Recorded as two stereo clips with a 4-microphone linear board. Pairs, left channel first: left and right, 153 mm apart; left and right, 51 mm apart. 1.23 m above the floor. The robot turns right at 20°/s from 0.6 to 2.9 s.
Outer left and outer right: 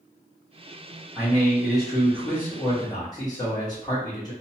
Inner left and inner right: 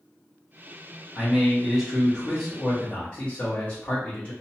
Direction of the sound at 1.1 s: 10° right.